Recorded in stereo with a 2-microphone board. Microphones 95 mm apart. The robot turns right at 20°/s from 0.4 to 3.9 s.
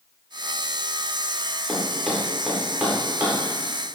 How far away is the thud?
About 8 m.